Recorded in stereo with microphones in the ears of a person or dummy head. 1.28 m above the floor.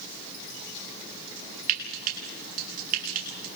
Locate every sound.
1.7 s frying: 55° right (ahead or behind), 7 m